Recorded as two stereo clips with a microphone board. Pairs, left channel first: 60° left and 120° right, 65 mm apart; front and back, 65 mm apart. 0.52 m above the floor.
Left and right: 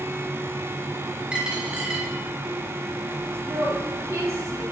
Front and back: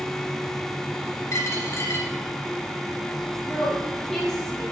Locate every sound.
1.3 s a dropped coin: 45° right, 2 m
3.5 s a woman speaking: 80° right, 3.5 m